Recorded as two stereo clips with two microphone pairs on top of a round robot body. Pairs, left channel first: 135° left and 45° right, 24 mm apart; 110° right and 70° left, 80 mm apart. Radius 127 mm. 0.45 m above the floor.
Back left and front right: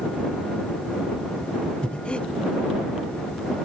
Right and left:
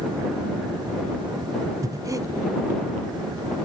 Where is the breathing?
105° left.